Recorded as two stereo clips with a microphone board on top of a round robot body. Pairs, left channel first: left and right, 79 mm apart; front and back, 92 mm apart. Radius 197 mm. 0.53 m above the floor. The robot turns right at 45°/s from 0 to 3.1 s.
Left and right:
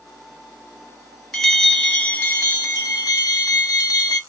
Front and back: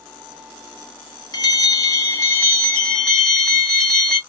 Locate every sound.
1.3 s a bell: straight ahead, 1.7 m; by 4.2 s 80° left, 1.7 m